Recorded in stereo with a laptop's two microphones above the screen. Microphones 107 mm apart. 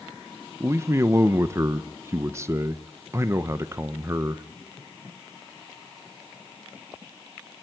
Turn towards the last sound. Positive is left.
turn(degrees=-25)  # may be behind; listen again after turning